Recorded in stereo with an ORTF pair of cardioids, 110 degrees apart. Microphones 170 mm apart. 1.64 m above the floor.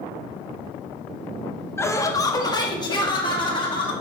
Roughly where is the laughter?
Ahead.